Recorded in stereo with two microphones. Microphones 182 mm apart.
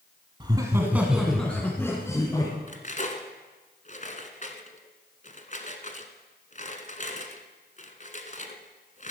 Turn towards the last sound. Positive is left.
turn(degrees=45)  # may be behind; listen again after turning